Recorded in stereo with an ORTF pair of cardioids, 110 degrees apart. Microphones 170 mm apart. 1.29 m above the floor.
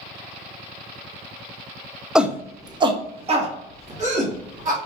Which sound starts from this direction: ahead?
A shout, at 2.1 s.